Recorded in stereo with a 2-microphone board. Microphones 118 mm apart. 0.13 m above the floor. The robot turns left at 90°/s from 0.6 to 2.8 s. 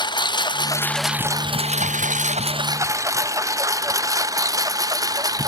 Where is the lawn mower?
35° left (ahead or behind); by 5.5 s 30° right (ahead or behind).